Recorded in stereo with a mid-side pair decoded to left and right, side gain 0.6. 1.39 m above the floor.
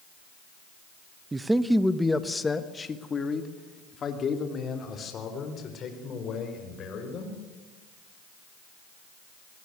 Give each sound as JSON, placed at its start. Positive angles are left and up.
{"t": 1.3, "sound": "a man speaking", "azimuth_deg": -20, "distance_m": 1.0}